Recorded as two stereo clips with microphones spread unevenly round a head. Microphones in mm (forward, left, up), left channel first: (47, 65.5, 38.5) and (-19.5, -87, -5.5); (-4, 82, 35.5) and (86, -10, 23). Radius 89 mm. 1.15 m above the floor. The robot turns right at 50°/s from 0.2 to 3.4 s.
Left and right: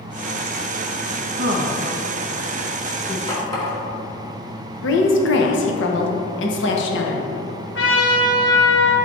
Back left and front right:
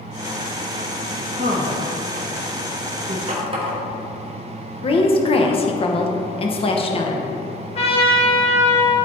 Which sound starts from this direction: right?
A woman speaking, at 1.4 s.